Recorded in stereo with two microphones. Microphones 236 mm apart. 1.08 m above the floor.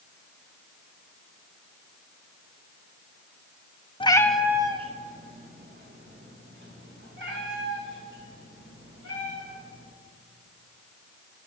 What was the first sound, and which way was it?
A cat meowing, 25° left (ahead or behind).